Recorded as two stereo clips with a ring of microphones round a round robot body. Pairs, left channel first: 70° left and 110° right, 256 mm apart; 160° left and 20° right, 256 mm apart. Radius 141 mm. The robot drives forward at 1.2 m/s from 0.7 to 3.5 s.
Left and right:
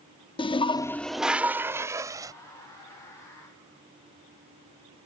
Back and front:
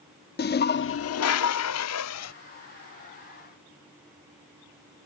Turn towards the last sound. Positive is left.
turn(degrees=175)